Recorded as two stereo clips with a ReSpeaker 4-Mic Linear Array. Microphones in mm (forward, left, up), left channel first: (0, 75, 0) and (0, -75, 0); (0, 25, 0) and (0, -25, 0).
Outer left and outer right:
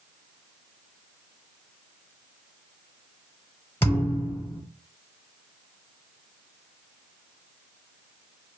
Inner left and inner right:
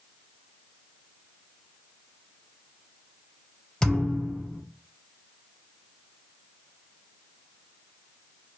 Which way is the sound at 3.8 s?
15° left (ahead or behind).